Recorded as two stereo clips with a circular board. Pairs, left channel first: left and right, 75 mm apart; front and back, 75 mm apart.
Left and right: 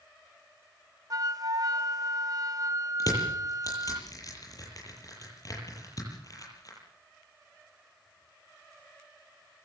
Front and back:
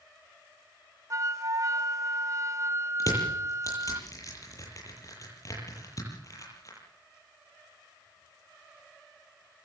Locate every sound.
1.1 s a flute: 130° right, 1.0 m
3.0 s crushing: 45° left, 9 m